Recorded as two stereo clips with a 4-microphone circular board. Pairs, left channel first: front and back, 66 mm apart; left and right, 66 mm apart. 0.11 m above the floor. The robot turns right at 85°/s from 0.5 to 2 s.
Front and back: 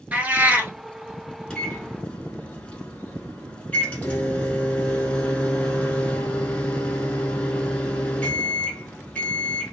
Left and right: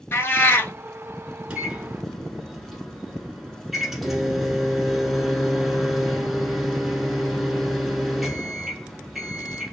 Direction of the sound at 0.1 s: 125° left.